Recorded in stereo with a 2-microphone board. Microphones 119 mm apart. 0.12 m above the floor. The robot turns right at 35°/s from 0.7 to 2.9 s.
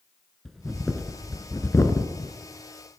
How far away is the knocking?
I don't hear knocking.